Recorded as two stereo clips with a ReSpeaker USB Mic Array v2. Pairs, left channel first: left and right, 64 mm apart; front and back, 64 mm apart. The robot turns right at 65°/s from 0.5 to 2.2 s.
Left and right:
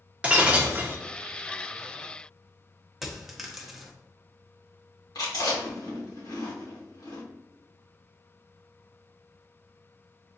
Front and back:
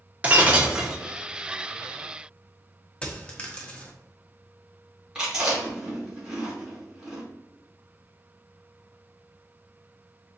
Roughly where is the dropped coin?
Ahead.